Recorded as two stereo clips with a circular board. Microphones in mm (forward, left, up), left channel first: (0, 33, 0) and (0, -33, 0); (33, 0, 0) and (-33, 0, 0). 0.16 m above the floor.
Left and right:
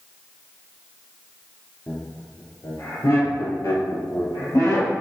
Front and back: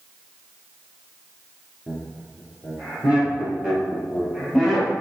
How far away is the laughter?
About 2.5 m.